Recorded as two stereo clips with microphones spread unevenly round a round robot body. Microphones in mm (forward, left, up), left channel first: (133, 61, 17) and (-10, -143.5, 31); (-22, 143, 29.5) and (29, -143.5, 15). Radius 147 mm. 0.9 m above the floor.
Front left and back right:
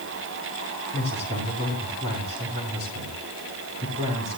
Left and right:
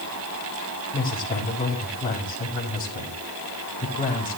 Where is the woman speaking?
175° left, 5 m.